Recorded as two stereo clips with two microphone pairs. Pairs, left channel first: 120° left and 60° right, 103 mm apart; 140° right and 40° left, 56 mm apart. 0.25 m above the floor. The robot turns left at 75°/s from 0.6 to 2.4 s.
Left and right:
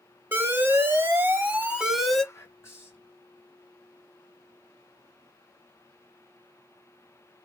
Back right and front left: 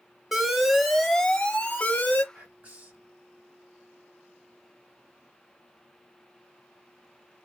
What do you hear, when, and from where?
0.3 s an alarm: 35° right, 0.7 m; by 2.2 s 160° right, 0.7 m
2.3 s whispering: 80° left, 1.8 m; by 3.1 s 75° left, 1.8 m